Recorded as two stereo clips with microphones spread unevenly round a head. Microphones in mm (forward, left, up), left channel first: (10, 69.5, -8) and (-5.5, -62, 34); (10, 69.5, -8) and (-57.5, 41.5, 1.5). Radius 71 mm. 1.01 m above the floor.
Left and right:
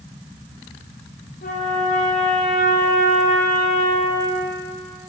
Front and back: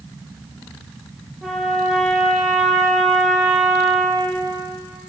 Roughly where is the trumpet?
Behind left.